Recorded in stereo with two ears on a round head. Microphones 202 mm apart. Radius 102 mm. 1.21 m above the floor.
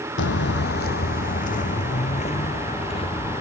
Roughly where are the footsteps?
Left.